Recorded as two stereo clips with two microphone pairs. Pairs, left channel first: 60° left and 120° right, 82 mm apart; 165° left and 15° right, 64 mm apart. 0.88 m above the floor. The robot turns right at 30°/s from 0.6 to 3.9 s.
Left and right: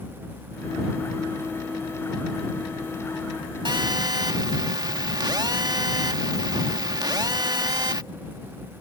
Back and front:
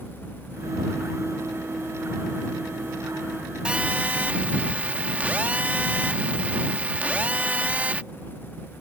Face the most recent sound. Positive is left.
turn(degrees=-85)